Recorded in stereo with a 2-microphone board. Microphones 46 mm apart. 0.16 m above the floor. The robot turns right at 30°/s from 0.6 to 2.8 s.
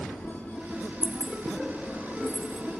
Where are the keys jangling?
35° left (ahead or behind), 2.5 m; by 2.6 s 70° left (ahead or behind), 2.5 m.